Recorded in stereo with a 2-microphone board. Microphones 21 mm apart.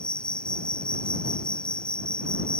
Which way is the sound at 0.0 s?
55° left (ahead or behind).